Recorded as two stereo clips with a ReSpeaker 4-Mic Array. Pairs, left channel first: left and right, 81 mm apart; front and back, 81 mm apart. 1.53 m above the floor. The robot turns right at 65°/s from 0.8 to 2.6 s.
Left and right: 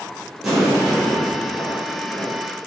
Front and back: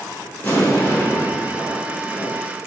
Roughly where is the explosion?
Ahead.